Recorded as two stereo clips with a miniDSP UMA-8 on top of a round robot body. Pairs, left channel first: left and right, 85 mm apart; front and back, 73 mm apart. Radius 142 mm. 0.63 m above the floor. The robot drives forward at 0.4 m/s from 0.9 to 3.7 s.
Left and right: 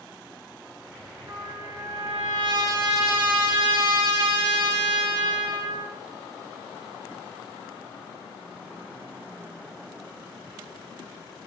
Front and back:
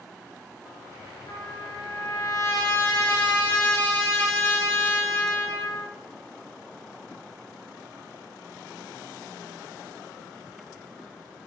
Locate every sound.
1.3 s a trumpet: 40° right, 2.5 m; by 6.0 s 65° right, 1.8 m